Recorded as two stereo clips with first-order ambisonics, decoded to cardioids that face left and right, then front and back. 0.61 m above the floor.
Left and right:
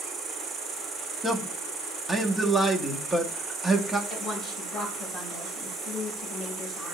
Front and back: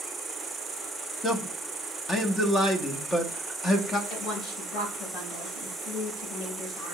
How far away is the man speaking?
About 0.6 m.